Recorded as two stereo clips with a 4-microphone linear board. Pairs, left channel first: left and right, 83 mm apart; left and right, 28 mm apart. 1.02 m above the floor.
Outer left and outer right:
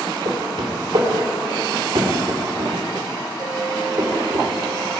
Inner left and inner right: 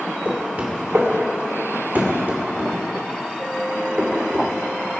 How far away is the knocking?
About 2.5 m.